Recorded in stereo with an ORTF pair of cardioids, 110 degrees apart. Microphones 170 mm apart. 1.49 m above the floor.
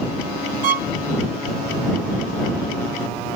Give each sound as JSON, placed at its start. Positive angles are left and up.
{"t": 0.6, "sound": "a violin", "azimuth_deg": -60}